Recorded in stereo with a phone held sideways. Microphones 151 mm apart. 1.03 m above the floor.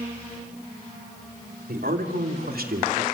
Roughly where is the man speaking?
Right.